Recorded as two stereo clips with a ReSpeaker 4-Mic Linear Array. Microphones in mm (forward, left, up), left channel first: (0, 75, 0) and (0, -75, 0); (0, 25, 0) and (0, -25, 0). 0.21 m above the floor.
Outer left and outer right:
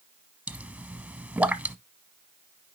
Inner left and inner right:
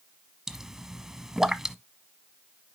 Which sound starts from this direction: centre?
A pop, at 0.5 s.